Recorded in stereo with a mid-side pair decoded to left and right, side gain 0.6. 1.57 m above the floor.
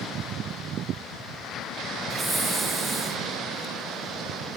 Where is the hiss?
20° right, 2 m.